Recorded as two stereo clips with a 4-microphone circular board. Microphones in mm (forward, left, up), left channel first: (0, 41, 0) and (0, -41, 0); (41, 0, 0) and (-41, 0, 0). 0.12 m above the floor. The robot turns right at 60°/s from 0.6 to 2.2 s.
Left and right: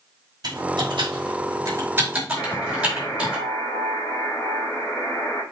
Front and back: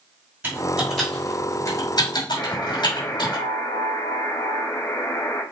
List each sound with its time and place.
0.4 s typing on a keyboard: 110° right, 5.5 m; by 3.4 s 15° right, 5.5 m
2.4 s a buzzer: 30° left, 4 m